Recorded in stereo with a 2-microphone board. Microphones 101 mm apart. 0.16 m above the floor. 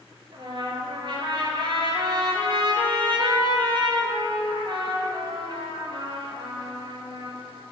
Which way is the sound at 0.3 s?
55° right (ahead or behind).